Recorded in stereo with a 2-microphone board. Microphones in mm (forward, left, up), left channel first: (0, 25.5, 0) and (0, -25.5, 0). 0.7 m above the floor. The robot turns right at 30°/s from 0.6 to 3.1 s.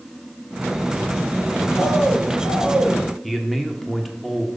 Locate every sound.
1.8 s a bird: 175° right, 3.5 m; by 3.0 s 140° right, 3.5 m
3.2 s a man speaking: centre (ahead or behind), 1.4 m